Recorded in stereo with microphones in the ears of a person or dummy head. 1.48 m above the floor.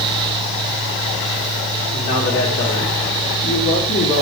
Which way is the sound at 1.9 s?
60° left (ahead or behind).